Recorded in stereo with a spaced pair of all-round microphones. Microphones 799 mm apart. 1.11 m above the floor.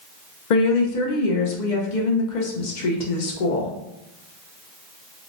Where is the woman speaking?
65° left (ahead or behind), 0.8 m.